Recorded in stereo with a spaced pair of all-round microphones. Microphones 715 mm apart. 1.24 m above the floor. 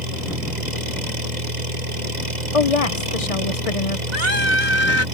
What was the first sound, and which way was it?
An engine running, 75° right (ahead or behind).